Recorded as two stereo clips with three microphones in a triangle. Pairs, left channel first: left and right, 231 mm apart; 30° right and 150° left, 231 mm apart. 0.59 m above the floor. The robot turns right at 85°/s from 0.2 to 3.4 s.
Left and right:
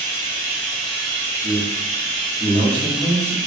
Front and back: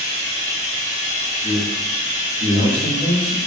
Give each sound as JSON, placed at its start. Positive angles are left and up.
{"t": 0.0, "sound": "running water", "azimuth_deg": 120, "distance_m": 1.3}
{"t": 1.4, "sound": "a man speaking", "azimuth_deg": -105, "distance_m": 1.4}